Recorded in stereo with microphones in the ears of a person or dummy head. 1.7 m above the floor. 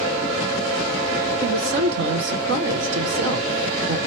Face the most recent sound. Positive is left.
turn(degrees=-60)  # may be behind; listen again after turning